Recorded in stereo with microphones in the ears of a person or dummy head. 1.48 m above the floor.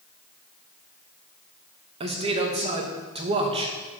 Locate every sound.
2.0 s a man speaking: 30° right (ahead or behind), 1.2 m